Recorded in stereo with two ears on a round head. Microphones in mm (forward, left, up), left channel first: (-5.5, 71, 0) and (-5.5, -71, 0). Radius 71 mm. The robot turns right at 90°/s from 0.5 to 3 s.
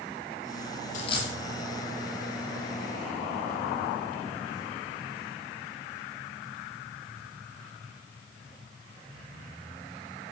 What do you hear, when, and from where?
0.9 s a dropped coin: 50° left (ahead or behind), 2 m; by 1.3 s 15° left (ahead or behind), 2 m